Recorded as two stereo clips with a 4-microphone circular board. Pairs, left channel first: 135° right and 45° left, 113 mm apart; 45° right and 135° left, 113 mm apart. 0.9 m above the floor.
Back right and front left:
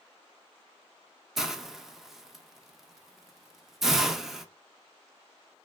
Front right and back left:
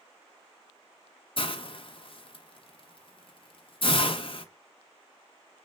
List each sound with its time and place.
1.4 s a hiss: 40° right, 0.5 m